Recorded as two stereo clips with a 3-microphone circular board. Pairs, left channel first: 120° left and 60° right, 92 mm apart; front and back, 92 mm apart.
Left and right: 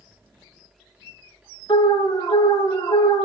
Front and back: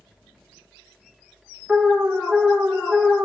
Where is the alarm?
95° left, 1.5 m.